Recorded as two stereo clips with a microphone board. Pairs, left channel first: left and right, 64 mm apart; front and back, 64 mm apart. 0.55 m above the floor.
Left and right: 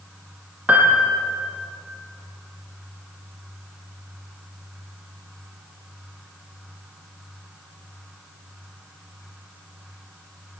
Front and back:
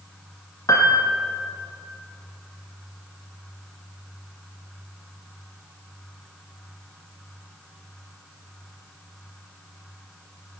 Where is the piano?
25° right, 4.5 m.